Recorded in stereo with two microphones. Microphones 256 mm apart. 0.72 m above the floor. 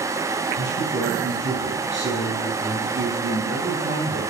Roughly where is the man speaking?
Right.